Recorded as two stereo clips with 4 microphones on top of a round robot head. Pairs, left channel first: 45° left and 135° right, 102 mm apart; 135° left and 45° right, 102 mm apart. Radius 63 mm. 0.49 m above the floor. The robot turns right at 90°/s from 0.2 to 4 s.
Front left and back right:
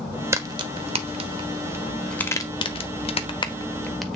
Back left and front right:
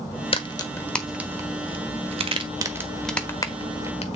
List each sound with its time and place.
0.3 s a crack: 160° left, 1.3 m; by 4.2 s 135° left, 1.3 m